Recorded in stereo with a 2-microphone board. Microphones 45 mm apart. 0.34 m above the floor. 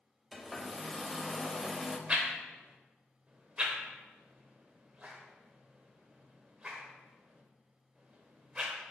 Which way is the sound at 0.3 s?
Centre (ahead or behind).